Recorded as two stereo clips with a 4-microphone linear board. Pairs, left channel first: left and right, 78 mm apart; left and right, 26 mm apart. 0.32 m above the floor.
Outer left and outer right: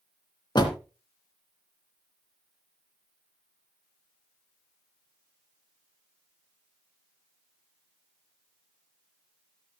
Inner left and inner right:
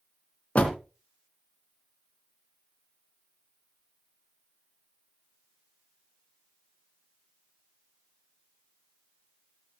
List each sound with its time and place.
0.6 s a door slam: 70° left (ahead or behind), 2.5 m